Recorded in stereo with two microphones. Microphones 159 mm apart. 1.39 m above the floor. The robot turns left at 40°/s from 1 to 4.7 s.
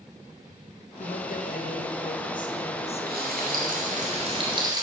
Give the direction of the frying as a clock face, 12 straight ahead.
3 o'clock.